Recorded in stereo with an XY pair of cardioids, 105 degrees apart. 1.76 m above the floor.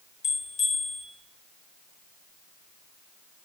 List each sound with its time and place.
0.2 s a bell: 55° left, 0.9 m